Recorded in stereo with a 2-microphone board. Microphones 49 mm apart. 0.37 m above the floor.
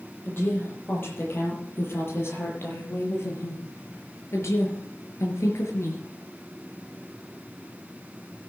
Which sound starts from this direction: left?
A woman speaking, at 0.2 s.